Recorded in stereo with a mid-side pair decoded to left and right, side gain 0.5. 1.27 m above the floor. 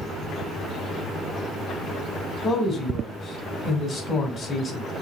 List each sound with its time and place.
2.4 s a man speaking: 45° left, 2 m